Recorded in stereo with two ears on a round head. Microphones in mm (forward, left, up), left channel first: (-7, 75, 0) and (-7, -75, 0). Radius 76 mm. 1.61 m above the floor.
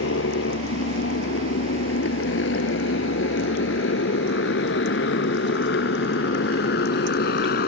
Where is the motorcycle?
80° left; by 7.7 s 65° left (ahead or behind).